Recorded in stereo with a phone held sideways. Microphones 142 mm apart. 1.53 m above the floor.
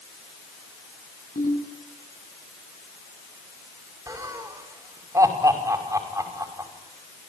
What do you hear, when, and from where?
1.4 s a ringtone: 70° left (ahead or behind), 8.5 m
4.1 s laughter: 25° right (ahead or behind), 5.5 m